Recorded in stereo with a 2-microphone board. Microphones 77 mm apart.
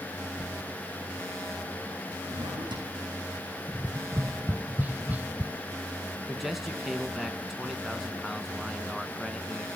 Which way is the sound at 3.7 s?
20° right (ahead or behind).